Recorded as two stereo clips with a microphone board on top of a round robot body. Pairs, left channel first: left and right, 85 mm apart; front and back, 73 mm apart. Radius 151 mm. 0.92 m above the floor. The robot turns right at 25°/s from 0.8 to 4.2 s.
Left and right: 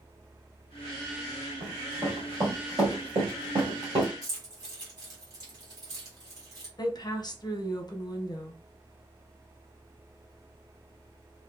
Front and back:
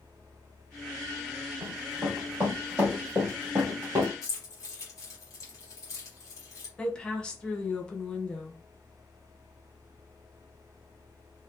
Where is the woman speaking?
75° left, 0.8 m.